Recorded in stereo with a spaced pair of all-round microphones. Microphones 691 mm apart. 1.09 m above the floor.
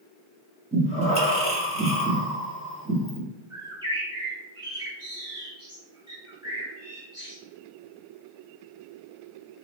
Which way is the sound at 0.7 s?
10° right (ahead or behind).